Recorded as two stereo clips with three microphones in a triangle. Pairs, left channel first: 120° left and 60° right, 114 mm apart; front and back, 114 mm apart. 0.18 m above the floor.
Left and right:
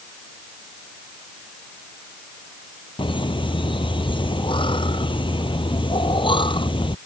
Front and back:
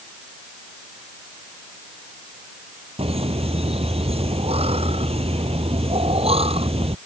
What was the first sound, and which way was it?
Laughter, 160° left.